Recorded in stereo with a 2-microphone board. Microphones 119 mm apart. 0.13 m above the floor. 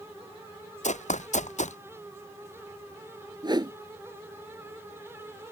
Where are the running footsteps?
80° left.